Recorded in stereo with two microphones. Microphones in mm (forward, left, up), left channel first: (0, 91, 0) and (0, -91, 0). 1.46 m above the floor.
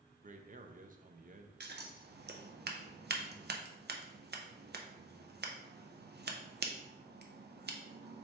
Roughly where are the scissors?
Right.